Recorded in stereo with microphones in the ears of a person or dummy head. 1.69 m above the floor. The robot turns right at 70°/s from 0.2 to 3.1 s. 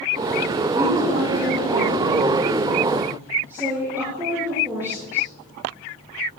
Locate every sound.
0.8 s a woman speaking: straight behind, 5 m; by 5.3 s 15° right, 5 m